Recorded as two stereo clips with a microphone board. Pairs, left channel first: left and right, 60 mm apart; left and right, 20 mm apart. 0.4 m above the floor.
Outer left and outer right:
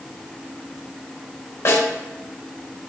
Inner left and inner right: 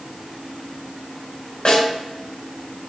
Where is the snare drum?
60° left (ahead or behind), 3 m.